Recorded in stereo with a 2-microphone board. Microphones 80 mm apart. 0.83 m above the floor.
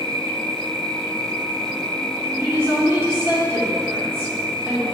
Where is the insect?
70° right (ahead or behind), 1.6 m.